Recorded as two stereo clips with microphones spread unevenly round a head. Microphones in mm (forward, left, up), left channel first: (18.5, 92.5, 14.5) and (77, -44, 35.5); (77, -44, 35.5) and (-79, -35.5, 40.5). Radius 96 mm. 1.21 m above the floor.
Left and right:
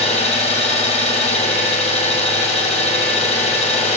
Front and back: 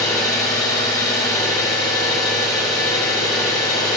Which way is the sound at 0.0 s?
70° left.